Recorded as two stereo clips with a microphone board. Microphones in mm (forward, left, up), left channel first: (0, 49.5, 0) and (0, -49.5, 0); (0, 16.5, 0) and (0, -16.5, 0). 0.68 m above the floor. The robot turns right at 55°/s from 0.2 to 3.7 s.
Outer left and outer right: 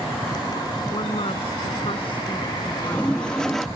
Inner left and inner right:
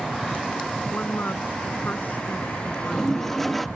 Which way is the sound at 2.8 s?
15° left (ahead or behind).